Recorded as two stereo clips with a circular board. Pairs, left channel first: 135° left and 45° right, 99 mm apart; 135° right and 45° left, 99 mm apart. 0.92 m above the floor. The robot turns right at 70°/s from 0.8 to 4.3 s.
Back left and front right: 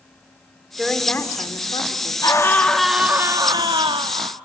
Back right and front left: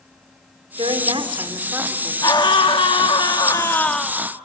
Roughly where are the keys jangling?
I don't hear keys jangling.